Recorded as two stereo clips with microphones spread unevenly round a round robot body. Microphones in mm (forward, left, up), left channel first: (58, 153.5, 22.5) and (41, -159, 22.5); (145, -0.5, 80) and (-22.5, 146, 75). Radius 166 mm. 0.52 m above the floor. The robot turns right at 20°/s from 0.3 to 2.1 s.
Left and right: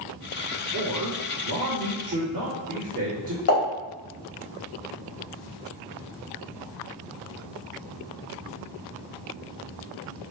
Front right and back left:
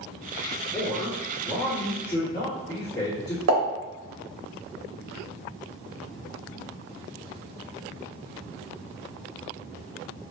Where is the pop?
135° left, 1.6 m.